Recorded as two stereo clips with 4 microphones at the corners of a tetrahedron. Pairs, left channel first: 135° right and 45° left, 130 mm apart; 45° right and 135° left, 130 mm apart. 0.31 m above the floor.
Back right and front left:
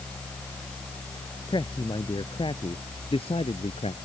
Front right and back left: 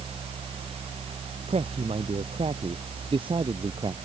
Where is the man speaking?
170° left; by 3.9 s 175° right.